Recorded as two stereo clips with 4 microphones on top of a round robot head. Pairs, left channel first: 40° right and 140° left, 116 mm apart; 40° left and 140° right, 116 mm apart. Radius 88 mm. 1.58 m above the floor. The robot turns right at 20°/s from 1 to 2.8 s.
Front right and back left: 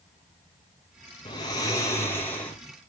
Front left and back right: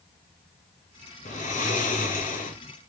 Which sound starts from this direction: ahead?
Snoring, at 1.2 s.